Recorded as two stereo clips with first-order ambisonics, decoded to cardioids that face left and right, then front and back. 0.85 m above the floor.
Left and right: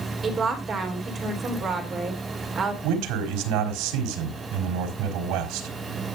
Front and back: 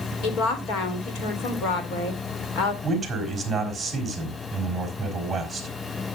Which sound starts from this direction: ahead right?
A woman speaking, at 0.2 s.